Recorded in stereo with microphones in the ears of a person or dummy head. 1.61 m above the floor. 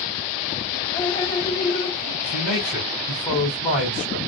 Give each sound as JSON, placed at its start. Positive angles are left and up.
{"t": 0.9, "sound": "dripping", "side_deg": 20, "distance_m": 0.8}
{"t": 2.2, "sound": "a man speaking", "side_deg": 5, "distance_m": 1.4}